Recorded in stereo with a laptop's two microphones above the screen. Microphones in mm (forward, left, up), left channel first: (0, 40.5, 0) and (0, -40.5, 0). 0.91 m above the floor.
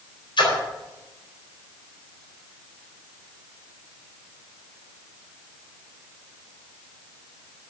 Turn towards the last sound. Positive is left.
turn(degrees=80)